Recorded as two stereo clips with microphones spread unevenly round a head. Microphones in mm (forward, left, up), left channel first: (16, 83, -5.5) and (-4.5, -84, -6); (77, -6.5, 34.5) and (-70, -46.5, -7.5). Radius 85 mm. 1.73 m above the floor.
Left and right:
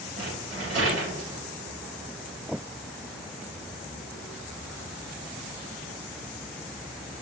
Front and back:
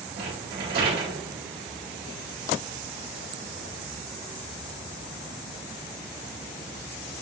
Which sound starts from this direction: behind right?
A rattle, at 0.2 s.